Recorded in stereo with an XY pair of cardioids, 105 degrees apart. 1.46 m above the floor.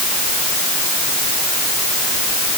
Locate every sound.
Only background noise.